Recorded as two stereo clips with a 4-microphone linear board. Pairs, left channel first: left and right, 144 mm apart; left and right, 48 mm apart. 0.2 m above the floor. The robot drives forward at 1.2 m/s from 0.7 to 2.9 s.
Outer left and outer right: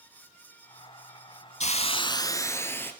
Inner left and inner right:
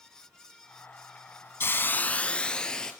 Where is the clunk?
No clunk in this recording.